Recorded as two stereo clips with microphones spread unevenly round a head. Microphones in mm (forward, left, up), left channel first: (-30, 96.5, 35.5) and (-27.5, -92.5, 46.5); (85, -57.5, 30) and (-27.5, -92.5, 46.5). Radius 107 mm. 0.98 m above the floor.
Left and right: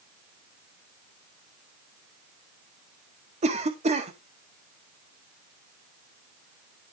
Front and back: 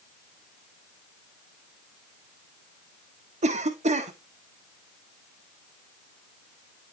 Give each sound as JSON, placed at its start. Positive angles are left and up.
{"t": 3.4, "sound": "a cough", "azimuth_deg": -145, "distance_m": 1.6}